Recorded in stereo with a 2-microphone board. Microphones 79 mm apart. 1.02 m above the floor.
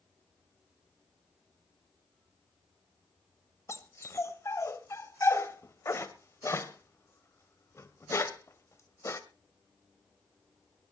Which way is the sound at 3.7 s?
35° left (ahead or behind).